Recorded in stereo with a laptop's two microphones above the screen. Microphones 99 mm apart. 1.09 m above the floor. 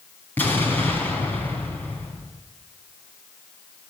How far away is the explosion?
About 4 m.